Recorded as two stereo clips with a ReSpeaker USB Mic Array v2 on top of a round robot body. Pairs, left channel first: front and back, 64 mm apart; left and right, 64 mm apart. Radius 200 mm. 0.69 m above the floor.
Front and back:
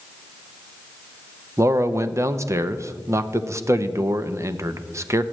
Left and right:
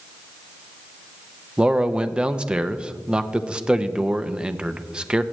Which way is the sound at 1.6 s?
160° right.